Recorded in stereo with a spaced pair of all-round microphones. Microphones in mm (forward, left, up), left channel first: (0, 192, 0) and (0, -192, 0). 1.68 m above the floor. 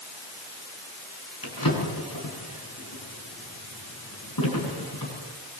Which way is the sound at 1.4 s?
65° left (ahead or behind).